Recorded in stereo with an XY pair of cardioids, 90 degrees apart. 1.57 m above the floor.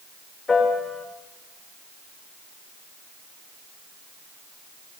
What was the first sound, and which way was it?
A piano, 55° left.